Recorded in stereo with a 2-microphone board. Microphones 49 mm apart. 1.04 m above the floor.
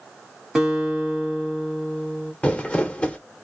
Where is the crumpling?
25° left (ahead or behind), 0.7 m.